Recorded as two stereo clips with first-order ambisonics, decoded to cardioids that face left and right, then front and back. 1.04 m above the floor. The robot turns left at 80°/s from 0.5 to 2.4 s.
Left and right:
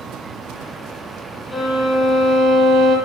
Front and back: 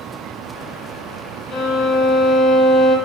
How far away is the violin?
About 0.6 m.